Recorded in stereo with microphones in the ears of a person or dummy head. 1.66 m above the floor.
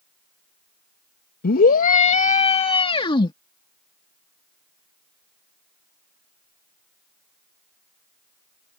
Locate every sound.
1.4 s a scream: 60° left (ahead or behind); by 3.3 s 25° left (ahead or behind)